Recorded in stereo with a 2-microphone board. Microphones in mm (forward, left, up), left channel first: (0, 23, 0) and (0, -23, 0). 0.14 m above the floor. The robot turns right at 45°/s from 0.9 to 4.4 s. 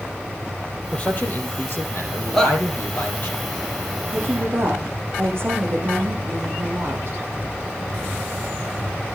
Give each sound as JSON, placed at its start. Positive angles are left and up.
{"t": 0.9, "sound": "a man speaking", "azimuth_deg": 30, "distance_m": 4.5}
{"t": 2.3, "sound": "a shout", "side_deg": 10, "distance_m": 5.5}
{"t": 4.1, "sound": "a woman speaking", "side_deg": -45, "distance_m": 7.0}